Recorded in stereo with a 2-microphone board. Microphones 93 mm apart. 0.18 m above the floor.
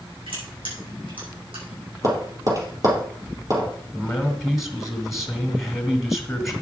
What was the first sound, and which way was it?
Crushing, 65° right (ahead or behind).